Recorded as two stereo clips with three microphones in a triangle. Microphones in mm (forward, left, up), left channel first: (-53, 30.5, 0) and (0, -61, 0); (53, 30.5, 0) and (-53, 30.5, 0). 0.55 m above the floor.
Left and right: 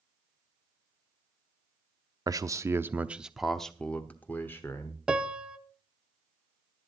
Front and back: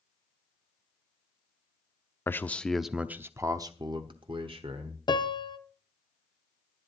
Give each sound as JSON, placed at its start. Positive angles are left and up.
{"t": 2.3, "sound": "a man speaking", "azimuth_deg": -50, "distance_m": 0.7}
{"t": 5.1, "sound": "a piano", "azimuth_deg": 20, "distance_m": 0.7}